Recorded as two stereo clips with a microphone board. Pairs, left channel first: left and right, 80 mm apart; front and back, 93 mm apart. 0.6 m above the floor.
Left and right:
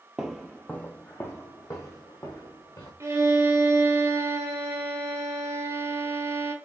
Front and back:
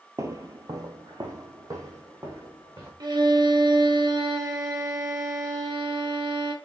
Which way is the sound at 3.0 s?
140° right.